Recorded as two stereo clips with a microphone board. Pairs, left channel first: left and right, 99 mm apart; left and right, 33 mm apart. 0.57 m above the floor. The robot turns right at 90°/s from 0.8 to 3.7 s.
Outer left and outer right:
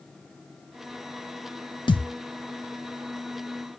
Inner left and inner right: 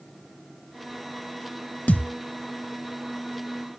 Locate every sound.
1.9 s a thud: 50° left (ahead or behind), 0.8 m; by 2.1 s 75° left (ahead or behind), 0.8 m